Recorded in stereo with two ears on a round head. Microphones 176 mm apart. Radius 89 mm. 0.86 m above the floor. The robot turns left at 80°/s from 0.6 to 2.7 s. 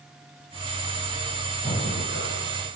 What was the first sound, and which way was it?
Breathing, 165° left.